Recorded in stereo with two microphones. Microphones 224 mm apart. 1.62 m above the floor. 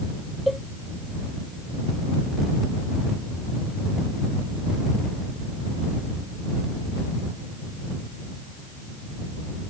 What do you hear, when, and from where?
0.5 s a cowbell: centre (ahead or behind)